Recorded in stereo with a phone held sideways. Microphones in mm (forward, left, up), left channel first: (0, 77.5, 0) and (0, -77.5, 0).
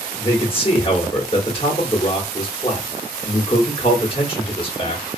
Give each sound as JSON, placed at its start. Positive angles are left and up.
{"t": 0.2, "sound": "a man speaking", "side_deg": 35, "distance_m": 1.0}